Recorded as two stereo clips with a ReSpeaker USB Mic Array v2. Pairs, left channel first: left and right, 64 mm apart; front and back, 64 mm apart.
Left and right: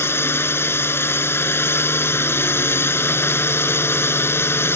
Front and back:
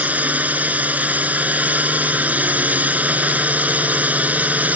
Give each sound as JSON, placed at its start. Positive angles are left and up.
{"t": 0.0, "sound": "a drone", "azimuth_deg": 125}